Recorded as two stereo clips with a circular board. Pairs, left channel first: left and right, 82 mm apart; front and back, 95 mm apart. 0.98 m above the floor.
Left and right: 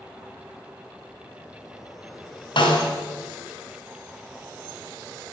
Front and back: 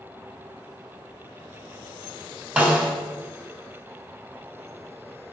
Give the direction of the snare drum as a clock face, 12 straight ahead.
9 o'clock.